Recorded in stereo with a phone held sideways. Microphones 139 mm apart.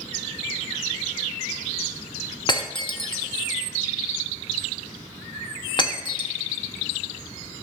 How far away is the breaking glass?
About 1.1 m.